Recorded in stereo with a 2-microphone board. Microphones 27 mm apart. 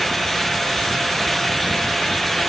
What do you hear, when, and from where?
Only background noise.